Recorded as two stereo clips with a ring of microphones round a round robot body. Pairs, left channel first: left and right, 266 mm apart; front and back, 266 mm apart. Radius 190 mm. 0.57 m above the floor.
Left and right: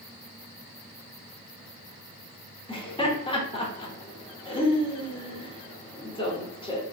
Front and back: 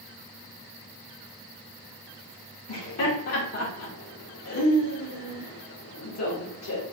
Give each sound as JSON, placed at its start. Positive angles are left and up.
{"t": 2.7, "sound": "laughter", "azimuth_deg": 20, "distance_m": 1.3}